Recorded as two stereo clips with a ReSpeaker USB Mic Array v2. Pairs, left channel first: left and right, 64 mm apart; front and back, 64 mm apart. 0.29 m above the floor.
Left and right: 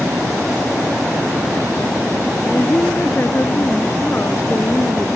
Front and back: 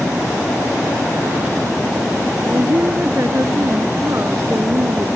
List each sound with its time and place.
2.5 s a woman speaking: 140° left